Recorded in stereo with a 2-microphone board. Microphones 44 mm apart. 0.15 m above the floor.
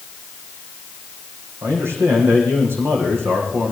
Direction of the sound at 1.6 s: 70° right (ahead or behind).